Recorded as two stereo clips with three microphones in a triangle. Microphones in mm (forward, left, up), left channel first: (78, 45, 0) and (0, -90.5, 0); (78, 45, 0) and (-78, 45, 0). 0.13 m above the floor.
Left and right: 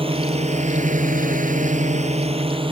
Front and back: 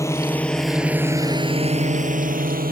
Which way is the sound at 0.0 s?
70° right.